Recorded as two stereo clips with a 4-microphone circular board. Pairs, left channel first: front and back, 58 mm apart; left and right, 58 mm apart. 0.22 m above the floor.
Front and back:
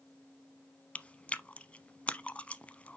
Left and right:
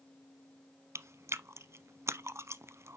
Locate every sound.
0.9 s chewing: 65° right, 0.5 m